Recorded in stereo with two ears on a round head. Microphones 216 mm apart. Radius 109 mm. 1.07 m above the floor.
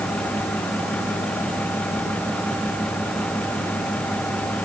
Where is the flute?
I don't hear a flute.